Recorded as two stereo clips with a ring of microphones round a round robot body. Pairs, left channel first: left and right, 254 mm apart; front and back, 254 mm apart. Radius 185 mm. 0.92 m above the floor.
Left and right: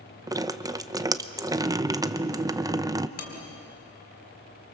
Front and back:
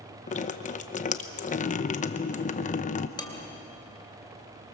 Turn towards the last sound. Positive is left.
turn(degrees=75)